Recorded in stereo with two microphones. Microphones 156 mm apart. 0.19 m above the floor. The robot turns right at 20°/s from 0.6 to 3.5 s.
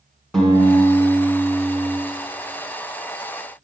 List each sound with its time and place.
0.3 s a guitar: 5° left (ahead or behind), 2.5 m; by 2.0 s 15° right (ahead or behind), 2.5 m